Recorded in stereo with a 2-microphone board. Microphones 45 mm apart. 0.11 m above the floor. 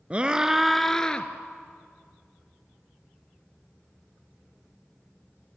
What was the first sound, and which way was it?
A scream, 25° right (ahead or behind).